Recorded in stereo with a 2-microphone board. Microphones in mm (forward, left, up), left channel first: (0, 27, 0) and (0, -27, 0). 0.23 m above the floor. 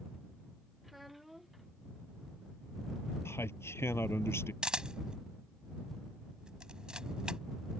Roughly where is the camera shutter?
Centre.